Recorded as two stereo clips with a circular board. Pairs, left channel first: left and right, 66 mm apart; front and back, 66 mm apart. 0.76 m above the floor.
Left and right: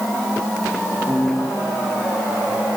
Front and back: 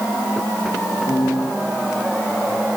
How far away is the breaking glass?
No breaking glass in this recording.